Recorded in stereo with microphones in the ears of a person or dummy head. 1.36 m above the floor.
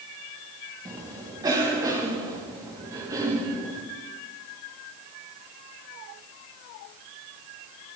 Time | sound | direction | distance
0.8 | a cough | 20° right (ahead or behind) | 2 m